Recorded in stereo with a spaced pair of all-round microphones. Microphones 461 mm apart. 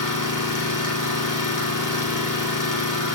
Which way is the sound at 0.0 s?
40° left (ahead or behind).